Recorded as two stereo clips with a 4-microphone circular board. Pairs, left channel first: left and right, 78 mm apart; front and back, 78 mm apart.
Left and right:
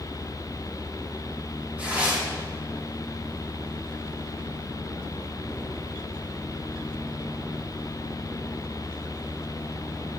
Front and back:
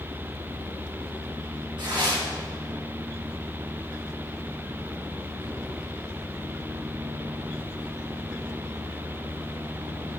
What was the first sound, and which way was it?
Tearing paper, 165° right.